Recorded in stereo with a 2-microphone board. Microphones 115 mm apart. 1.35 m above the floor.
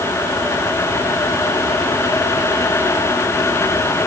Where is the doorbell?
No doorbell in this recording.